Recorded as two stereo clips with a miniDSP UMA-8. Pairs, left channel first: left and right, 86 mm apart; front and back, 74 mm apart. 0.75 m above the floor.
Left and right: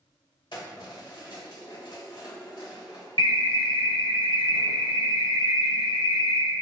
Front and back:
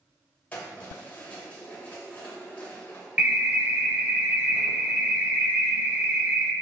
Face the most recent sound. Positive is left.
turn(degrees=115)